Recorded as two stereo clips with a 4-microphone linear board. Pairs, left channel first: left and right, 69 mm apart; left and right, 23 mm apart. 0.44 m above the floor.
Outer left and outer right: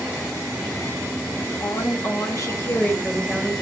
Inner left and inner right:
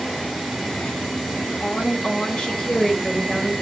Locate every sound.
1.6 s a woman speaking: 65° left (ahead or behind), 3 m; by 3.5 s 15° left (ahead or behind), 2.5 m